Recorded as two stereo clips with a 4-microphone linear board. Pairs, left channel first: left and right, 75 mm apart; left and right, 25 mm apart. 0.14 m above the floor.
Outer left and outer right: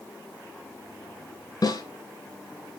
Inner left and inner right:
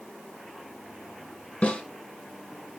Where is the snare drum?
50° left (ahead or behind), 2.5 m.